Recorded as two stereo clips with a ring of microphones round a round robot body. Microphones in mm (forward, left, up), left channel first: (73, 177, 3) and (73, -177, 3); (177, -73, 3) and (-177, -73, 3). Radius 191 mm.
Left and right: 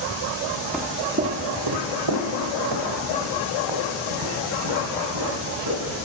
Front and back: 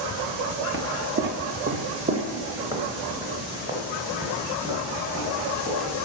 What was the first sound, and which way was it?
Footsteps, 175° left.